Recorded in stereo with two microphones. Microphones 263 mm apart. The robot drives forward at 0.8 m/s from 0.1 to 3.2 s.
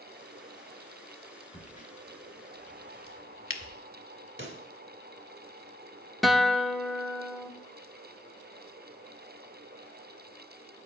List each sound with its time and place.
1.5 s a crack: 25° left (ahead or behind), 1.2 m; by 3.8 s 50° left (ahead or behind), 0.7 m
4.4 s a pop: 45° right (ahead or behind), 0.8 m
6.2 s a guitar: centre (ahead or behind), 0.5 m